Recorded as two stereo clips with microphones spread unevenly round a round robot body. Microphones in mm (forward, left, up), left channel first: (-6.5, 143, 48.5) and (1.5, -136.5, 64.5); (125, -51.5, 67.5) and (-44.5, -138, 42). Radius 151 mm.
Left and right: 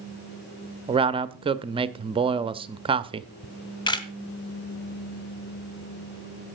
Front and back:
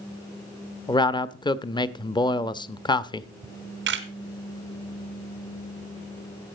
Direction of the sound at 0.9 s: 30° right.